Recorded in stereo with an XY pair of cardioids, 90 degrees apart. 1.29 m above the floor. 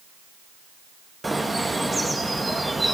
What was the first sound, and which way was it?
A bird, 15° right.